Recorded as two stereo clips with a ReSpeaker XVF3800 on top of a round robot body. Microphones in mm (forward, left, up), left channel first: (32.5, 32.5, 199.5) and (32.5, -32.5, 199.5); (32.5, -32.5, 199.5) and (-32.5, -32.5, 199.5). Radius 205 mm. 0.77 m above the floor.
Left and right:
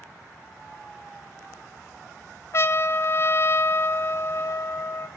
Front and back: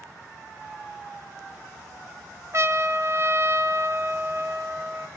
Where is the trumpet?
135° left, 1.5 m.